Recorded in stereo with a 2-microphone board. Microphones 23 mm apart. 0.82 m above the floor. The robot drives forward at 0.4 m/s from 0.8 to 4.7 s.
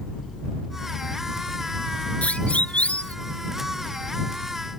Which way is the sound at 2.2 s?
80° left.